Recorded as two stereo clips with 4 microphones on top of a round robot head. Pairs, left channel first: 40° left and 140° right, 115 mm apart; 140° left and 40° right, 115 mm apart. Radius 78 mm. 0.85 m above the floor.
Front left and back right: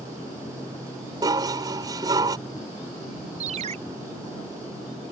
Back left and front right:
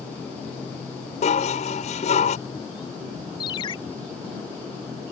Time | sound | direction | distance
1.2 | dishes clattering | 165° left | ?
3.4 | a ringtone | 170° right | ?